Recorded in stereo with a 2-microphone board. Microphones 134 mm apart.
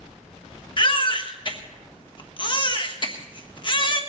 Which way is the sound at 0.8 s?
35° left (ahead or behind).